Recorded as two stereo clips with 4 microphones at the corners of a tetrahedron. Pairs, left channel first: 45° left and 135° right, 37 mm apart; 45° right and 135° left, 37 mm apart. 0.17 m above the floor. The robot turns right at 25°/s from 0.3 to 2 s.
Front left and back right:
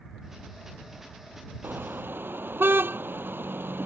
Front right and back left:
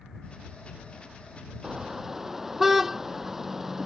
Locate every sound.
1.6 s a car horn: 155° right; by 3.9 s 145° right